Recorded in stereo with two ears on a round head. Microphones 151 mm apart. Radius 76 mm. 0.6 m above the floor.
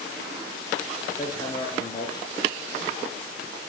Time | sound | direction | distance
1.2 | hammering | 20° left (ahead or behind) | 2.5 m